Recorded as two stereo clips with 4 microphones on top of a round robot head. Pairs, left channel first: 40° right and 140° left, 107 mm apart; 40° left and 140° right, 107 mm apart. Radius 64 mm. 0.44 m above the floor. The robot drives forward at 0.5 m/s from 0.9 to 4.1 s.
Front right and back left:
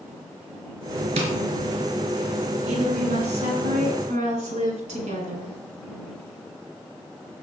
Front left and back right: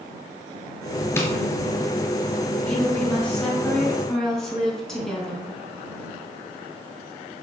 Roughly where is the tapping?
Left.